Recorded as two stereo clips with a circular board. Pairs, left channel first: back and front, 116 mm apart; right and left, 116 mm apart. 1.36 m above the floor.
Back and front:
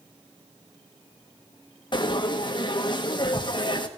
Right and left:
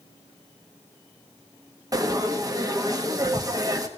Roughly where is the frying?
Behind left.